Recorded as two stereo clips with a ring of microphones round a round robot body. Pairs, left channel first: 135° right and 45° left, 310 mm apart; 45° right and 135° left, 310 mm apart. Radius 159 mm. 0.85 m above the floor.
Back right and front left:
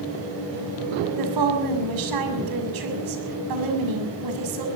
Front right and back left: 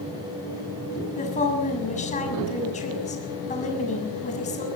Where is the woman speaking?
25° left, 6.5 m.